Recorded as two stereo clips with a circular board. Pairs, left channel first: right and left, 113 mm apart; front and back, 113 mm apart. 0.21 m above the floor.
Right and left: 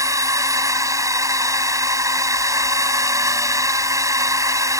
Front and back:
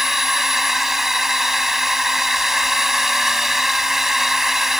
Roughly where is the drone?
Left.